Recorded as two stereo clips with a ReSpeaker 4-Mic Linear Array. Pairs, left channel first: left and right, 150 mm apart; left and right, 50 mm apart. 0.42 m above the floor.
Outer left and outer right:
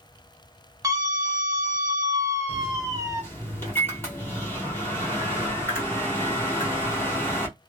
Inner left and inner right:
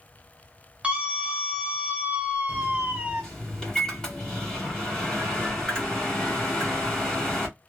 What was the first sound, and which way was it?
A scream, 25° right (ahead or behind).